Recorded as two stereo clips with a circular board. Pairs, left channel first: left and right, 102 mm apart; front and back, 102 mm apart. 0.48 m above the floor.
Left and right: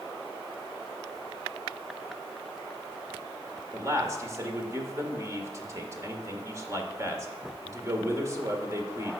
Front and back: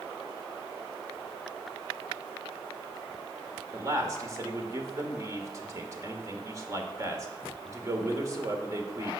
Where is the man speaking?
140° right, 1.6 m.